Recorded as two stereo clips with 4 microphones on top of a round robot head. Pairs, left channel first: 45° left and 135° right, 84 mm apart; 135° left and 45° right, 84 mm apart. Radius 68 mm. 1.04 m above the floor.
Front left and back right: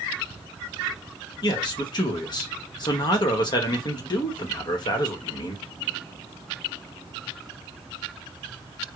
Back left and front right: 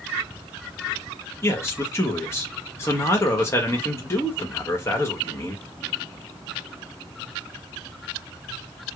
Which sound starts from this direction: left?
A man speaking, at 1.4 s.